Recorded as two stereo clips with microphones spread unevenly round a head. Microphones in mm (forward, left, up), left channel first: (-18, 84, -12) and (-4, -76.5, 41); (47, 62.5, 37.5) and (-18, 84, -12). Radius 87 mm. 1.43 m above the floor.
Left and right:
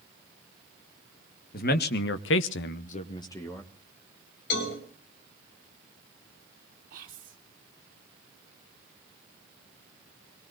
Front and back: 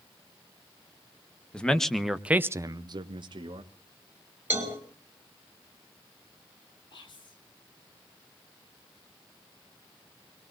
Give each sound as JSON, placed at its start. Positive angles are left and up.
{"t": 1.5, "sound": "a man speaking", "azimuth_deg": 55, "distance_m": 1.6}
{"t": 4.5, "sound": "a cowbell", "azimuth_deg": 100, "distance_m": 5.0}
{"t": 6.9, "sound": "whispering", "azimuth_deg": -45, "distance_m": 3.5}